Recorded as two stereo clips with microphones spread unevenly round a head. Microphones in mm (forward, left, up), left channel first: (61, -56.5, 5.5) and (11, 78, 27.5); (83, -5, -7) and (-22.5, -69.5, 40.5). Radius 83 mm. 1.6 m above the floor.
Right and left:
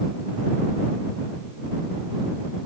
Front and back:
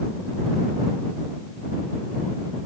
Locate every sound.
Only background noise.